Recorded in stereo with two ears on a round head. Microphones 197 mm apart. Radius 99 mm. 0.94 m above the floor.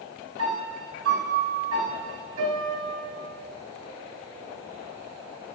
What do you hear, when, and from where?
0.4 s a piano: 80° right, 5.5 m